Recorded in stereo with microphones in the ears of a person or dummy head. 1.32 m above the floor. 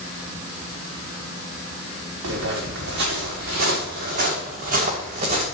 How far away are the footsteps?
About 5 m.